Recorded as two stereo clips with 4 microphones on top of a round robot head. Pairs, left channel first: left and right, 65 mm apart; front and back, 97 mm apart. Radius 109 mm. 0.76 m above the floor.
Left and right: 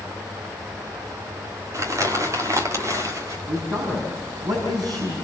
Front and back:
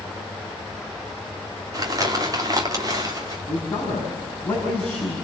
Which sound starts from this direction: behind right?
Crumpling, at 1.7 s.